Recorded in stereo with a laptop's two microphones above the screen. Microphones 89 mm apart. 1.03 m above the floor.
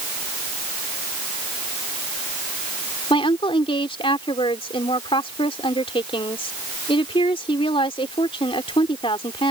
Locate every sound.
3.1 s a woman speaking: 85° left